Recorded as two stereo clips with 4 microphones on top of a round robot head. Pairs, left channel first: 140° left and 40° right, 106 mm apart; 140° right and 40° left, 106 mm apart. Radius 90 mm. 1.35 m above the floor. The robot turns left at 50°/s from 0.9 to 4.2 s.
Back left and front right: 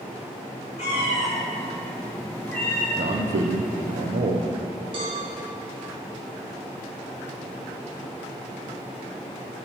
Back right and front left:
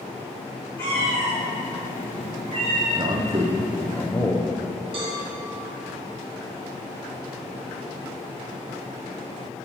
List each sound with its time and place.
0.8 s a cat meowing: 150° left, 1.1 m; by 2.9 s 55° left, 1.1 m
3.0 s a man speaking: 5° right, 0.6 m; by 4.5 s 70° right, 0.6 m
4.9 s a cowbell: straight ahead, 1.6 m